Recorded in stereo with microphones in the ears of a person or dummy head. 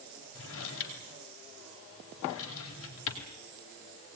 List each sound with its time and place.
0.3 s a drawer: 75° left (ahead or behind), 4 m